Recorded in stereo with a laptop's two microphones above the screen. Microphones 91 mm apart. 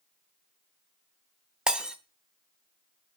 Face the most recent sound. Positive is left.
turn(degrees=-10)  # may be behind; listen again after turning